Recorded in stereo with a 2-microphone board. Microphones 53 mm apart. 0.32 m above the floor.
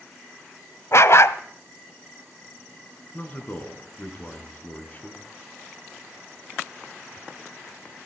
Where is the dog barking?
60° left (ahead or behind), 0.8 m.